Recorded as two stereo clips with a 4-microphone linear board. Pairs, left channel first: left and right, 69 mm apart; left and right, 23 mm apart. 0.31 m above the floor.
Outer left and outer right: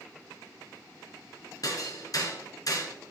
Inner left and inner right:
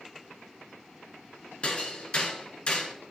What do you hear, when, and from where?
1.6 s hammering: 60° left (ahead or behind), 1.4 m